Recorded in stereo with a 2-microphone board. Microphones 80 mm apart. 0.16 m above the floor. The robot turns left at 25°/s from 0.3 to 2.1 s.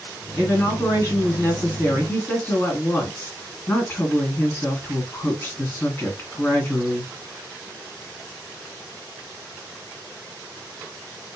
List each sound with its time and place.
0.4 s a woman speaking: 95° left, 1.9 m; by 7.1 s 55° left, 1.9 m